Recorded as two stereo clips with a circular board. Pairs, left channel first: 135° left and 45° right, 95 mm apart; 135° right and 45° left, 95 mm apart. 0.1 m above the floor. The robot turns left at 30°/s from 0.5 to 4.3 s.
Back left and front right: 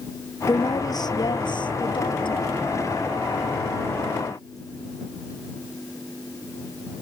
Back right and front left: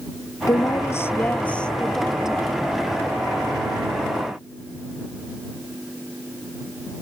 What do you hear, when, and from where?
0.5 s a woman speaking: straight behind; by 2.5 s 120° left